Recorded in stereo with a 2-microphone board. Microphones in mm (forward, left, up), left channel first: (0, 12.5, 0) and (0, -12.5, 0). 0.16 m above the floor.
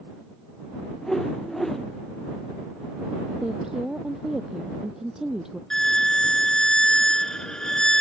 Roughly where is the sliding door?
No sliding door in this recording.